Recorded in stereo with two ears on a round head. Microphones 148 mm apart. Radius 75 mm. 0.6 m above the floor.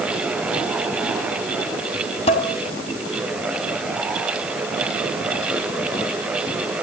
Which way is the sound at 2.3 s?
40° left (ahead or behind).